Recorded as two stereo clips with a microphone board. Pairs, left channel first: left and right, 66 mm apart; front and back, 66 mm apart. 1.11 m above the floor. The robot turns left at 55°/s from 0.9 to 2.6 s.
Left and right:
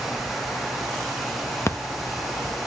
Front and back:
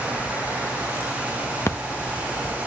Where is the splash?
45° left, 0.8 m; by 1.8 s 40° left, 0.8 m.